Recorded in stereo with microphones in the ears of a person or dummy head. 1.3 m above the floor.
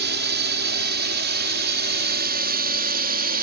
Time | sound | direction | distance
0.0 | a drone | 55° right (ahead or behind) | ?